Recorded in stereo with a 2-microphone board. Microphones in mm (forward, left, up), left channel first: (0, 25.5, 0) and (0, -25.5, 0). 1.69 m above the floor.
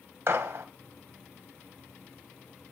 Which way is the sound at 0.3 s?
60° right (ahead or behind).